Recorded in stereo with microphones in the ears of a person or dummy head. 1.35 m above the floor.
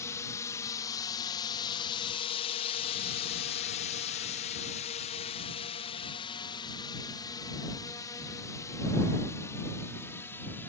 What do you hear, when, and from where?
0.0 s a drone: 20° left (ahead or behind); by 10.7 s 10° left (ahead or behind)